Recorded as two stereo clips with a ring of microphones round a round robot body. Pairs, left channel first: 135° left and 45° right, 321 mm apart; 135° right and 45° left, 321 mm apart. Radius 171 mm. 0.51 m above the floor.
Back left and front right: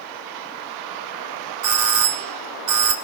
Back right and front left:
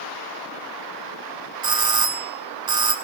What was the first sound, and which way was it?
A doorbell, 30° right.